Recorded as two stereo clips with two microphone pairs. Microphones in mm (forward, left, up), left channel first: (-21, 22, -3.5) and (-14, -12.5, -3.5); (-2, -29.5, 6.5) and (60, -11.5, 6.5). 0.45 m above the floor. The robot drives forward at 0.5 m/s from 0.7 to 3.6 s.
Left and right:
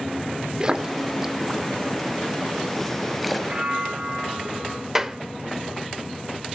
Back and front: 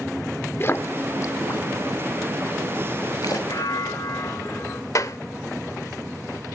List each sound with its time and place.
0.6 s a splash: 135° right, 0.6 m; by 3.4 s 170° right, 1.7 m
3.5 s a bell: 140° right, 2.5 m; by 4.8 s 145° right, 2.5 m
5.0 s a clap: 155° right, 1.0 m